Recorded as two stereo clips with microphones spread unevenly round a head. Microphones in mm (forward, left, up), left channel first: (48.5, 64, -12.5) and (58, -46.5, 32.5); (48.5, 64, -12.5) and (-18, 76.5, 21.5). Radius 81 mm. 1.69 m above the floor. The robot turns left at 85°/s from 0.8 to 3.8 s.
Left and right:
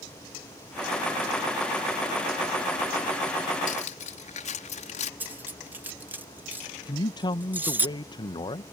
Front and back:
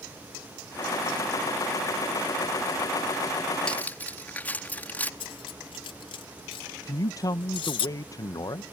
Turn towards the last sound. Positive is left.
turn(degrees=35)